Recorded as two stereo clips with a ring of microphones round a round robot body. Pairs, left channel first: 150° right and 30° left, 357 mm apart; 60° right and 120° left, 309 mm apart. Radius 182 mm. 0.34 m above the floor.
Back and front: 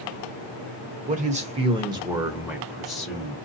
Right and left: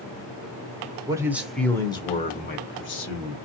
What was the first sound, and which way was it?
A man speaking, 60° left.